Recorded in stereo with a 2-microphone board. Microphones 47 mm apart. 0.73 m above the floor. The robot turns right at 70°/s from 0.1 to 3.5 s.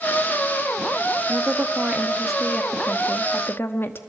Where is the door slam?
I don't hear a door slam.